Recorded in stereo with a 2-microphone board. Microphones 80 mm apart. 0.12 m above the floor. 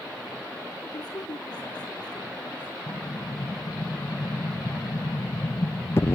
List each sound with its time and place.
0.9 s a woman speaking: 60° left (ahead or behind), 3.5 m
2.9 s an explosion: 35° left (ahead or behind), 0.5 m